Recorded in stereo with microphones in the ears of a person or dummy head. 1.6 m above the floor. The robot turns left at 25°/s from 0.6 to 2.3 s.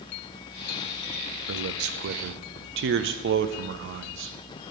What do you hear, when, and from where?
1.5 s a man speaking: 70° right (ahead or behind), 0.6 m; by 4.3 s 55° right (ahead or behind), 0.6 m